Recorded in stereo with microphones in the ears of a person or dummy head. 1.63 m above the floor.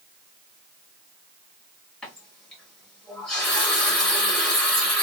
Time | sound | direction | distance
2.0 | a running tap | centre (ahead or behind) | 1.3 m